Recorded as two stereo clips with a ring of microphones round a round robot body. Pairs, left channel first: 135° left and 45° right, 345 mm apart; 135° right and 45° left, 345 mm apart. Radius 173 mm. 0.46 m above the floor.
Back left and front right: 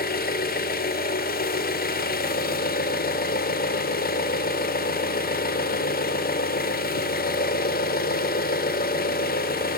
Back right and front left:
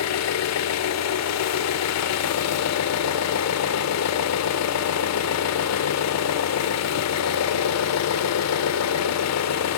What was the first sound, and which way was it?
An engine running, 165° right.